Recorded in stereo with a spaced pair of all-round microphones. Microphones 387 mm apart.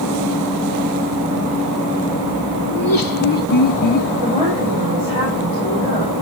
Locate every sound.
2.7 s laughter: 60° left (ahead or behind), 0.9 m; by 4.1 s 50° left (ahead or behind), 1.9 m
4.2 s a woman speaking: 20° right (ahead or behind), 6 m